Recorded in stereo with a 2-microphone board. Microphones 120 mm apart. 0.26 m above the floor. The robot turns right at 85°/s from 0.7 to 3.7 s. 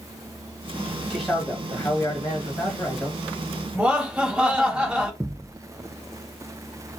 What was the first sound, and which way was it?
A man speaking, centre (ahead or behind).